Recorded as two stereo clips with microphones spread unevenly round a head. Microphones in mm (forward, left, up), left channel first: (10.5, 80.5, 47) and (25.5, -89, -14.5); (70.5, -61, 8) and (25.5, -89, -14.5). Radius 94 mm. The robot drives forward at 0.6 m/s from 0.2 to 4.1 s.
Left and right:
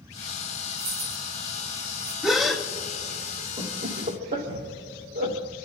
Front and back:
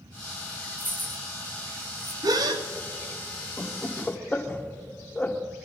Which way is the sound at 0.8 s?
85° right.